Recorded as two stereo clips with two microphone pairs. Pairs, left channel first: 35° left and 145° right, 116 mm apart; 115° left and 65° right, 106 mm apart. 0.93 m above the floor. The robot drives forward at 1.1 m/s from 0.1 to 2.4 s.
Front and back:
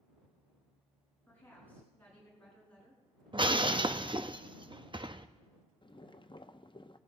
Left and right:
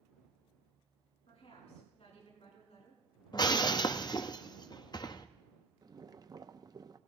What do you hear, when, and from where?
1.3 s a woman speaking: 105° left, 8.5 m; by 3.0 s 115° left, 9 m
3.3 s breaking glass: 165° left, 0.6 m
5.8 s boiling: 10° right, 0.6 m